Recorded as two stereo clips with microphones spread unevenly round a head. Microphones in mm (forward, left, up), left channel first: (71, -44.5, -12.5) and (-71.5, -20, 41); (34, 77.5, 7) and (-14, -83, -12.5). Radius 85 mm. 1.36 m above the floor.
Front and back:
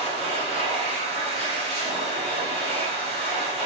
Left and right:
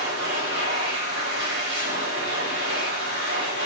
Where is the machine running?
140° right, 5.5 m.